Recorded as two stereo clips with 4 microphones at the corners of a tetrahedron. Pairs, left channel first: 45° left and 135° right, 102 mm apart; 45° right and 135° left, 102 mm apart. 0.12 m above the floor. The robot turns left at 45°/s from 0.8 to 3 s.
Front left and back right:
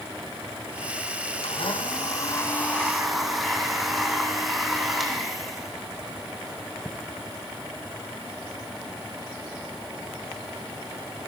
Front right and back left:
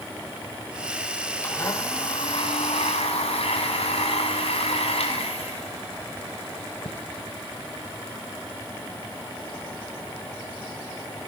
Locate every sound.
1.4 s a blender: 25° left, 3.5 m; by 7.0 s 45° right, 3.5 m